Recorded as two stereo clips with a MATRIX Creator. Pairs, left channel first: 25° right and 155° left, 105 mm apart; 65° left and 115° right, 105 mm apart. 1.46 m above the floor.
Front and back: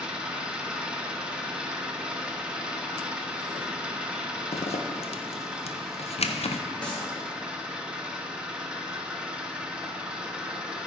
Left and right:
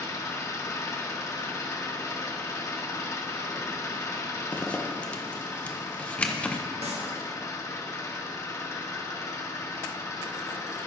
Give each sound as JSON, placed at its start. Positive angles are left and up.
{"t": 0.0, "sound": "an engine running", "azimuth_deg": 85, "distance_m": 0.9}
{"t": 4.5, "sound": "a zipper", "azimuth_deg": -10, "distance_m": 0.6}
{"t": 6.8, "sound": "a clap", "azimuth_deg": -100, "distance_m": 1.6}